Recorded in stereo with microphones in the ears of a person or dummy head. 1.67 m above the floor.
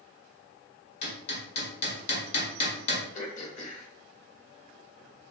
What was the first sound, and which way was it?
Hammering, 40° left (ahead or behind).